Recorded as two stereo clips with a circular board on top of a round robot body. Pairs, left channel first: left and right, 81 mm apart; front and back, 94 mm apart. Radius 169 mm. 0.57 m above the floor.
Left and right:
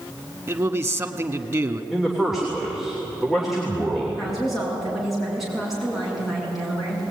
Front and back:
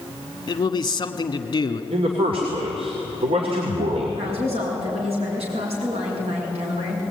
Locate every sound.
0.5 s a man speaking: 40° right, 1.4 m
1.9 s a man speaking: 175° right, 3 m
4.2 s a woman speaking: straight behind, 6.5 m